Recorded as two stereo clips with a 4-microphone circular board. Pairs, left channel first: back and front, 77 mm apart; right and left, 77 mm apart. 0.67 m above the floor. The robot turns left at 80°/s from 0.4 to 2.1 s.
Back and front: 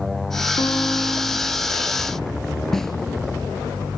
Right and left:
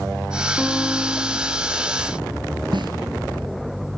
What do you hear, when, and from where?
0.6 s a guitar: 175° left, 2 m; by 1.6 s 95° left, 2 m
2.7 s a snare drum: 95° left, 2.5 m